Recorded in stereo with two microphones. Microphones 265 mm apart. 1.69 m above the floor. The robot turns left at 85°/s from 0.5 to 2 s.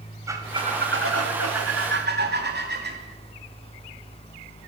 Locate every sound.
0.3 s a squeak: 10° right, 2.5 m; by 3.0 s 140° right, 2.5 m